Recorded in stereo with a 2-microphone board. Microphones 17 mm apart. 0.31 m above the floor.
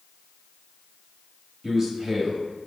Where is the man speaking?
30° right (ahead or behind), 1.3 m.